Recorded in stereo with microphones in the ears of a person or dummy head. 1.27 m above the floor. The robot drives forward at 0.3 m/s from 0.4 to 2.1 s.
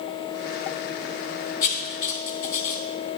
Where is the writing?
45° left (ahead or behind), 2.5 m; by 3.2 s 50° left (ahead or behind), 2.5 m.